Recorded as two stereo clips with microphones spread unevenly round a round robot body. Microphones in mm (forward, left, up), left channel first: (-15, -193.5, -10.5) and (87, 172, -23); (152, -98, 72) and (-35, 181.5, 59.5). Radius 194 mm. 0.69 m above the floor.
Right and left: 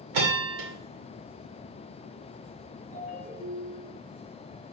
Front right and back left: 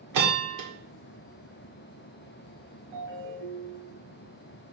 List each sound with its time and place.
0.1 s a bell: 110° left, 2.0 m
2.9 s a ringtone: 175° right, 2.5 m